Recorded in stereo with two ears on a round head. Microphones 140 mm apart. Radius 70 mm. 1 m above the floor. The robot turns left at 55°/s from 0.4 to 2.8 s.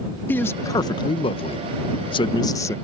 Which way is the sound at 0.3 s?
160° left.